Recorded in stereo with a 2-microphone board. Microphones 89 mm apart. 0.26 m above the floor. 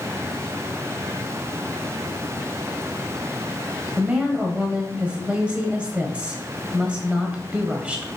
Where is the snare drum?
I don't hear a snare drum.